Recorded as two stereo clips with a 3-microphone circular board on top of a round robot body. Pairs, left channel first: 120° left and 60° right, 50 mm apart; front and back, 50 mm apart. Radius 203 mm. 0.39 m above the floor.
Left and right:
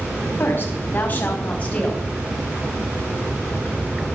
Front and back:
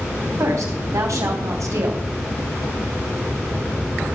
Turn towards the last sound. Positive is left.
turn(degrees=-170)